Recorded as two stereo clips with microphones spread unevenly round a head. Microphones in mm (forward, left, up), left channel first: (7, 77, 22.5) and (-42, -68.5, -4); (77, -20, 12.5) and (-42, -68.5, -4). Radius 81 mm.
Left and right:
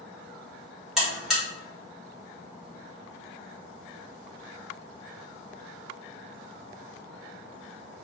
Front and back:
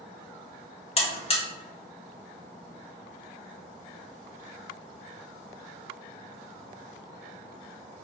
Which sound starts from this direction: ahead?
A buzzer, at 1.0 s.